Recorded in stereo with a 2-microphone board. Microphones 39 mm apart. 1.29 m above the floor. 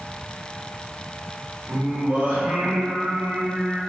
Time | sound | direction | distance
1.7 | singing | 70° right (ahead or behind) | 1.1 m